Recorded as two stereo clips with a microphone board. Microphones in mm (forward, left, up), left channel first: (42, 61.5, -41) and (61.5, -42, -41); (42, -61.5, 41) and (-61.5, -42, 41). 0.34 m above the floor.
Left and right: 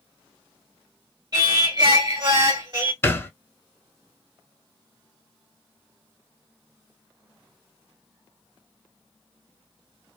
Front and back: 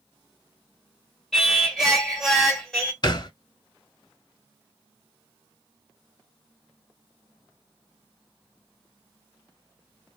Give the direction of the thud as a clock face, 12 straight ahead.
11 o'clock.